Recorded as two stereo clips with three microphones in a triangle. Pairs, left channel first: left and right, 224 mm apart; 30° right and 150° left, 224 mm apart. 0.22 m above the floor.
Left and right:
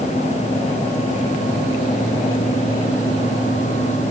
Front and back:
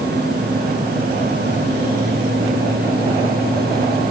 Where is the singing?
No singing in this recording.